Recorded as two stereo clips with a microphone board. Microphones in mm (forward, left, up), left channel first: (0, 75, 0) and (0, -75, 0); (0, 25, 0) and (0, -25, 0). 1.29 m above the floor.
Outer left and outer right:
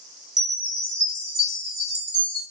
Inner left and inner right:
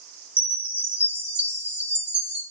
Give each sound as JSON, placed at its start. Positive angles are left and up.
{"t": 0.4, "sound": "a chime", "side_deg": -30, "distance_m": 3.0}